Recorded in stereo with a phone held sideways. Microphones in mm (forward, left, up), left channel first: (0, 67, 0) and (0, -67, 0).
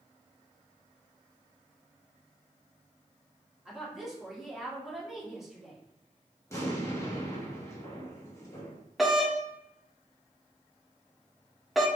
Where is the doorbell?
Centre (ahead or behind), 0.7 m.